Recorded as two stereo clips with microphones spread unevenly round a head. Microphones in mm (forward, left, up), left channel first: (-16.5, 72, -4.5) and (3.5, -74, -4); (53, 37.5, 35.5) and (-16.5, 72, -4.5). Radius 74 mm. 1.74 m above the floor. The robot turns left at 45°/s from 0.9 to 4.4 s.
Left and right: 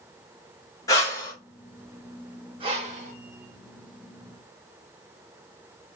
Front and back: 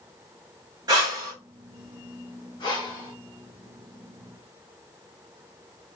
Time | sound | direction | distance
0.9 | breathing | 110° left | 1.4 m
2.6 | breathing | 25° right | 1.3 m